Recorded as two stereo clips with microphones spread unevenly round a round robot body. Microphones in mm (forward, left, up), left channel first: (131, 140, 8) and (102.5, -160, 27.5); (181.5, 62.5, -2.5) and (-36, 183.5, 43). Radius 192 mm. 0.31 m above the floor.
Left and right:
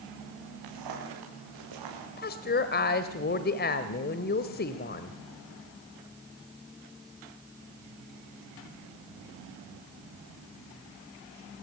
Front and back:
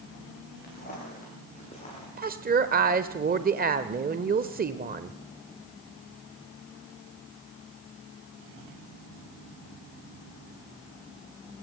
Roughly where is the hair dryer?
No hair dryer in this recording.